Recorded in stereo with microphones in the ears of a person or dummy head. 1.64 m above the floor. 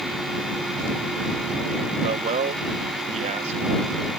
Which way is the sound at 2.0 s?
40° right (ahead or behind).